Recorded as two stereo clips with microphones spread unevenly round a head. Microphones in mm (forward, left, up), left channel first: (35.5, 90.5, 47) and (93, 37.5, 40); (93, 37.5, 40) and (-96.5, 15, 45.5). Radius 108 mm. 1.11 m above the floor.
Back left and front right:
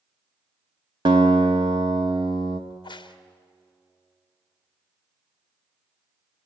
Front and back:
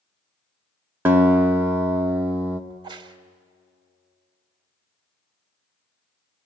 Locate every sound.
1.1 s a guitar: 90° right, 0.7 m
2.7 s a crack: 120° left, 1.4 m